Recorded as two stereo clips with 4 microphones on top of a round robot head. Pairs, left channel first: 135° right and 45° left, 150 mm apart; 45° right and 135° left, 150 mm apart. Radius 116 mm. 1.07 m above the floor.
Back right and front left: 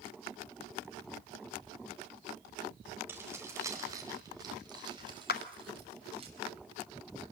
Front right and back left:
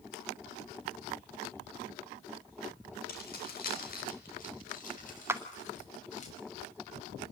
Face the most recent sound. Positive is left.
turn(degrees=-150)